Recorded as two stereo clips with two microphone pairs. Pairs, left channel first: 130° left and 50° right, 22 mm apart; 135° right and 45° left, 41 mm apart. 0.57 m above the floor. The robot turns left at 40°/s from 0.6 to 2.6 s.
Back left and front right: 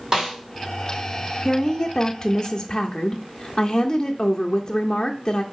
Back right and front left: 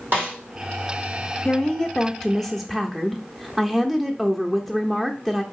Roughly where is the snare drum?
Ahead.